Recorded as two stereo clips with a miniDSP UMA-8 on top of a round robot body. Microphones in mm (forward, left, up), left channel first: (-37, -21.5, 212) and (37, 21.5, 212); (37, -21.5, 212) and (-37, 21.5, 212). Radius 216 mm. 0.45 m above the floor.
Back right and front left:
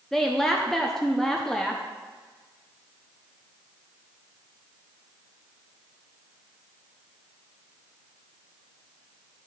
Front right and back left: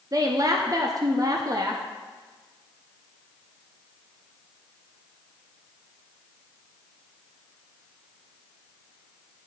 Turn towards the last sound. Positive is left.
turn(degrees=125)